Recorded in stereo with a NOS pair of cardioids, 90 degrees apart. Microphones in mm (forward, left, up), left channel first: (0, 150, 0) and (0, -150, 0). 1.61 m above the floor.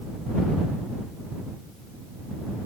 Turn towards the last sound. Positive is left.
No sound to turn to.